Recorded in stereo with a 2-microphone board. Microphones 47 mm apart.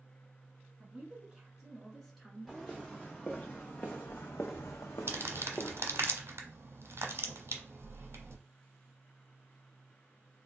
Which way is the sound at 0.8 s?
20° right (ahead or behind).